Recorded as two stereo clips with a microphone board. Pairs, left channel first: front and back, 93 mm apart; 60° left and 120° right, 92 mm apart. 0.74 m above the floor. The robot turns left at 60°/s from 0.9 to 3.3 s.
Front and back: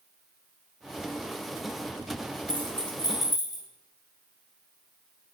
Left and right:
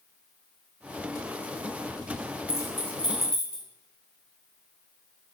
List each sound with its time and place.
2.5 s keys jangling: 10° left, 0.8 m; by 3.6 s 40° right, 0.8 m